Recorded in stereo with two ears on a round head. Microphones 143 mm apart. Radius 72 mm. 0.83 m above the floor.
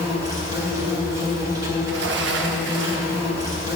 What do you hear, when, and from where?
0.0 s an insect: 25° right (ahead or behind), 3 m
1.8 s a sliding door: 85° right, 0.9 m